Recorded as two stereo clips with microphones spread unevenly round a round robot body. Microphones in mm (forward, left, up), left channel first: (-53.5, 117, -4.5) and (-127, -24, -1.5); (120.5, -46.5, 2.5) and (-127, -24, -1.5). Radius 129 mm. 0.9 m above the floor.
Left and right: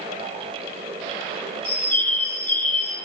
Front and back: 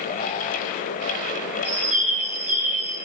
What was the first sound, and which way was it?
A bird, 90° left.